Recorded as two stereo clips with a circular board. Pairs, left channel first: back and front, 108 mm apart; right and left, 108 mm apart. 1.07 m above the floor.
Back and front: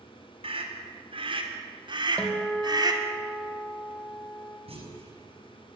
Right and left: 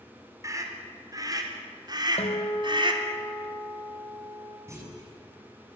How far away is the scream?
About 4 m.